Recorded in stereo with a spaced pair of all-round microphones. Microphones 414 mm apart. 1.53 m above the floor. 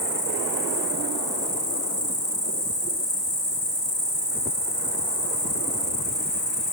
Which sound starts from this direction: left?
An insect, at 0.0 s.